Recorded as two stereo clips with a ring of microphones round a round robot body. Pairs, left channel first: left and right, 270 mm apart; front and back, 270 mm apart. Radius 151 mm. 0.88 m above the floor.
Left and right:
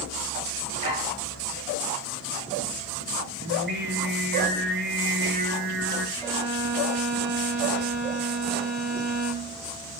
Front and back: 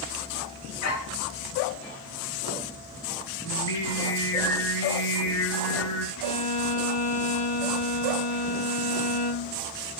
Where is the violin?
15° right, 5.5 m.